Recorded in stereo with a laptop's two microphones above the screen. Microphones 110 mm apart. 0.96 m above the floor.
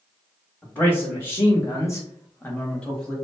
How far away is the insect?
No insect in this recording.